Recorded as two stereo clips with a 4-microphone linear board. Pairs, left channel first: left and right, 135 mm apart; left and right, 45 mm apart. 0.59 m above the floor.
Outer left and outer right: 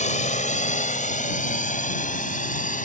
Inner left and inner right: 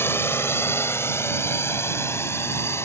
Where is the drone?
65° left (ahead or behind); by 2.9 s 75° left (ahead or behind).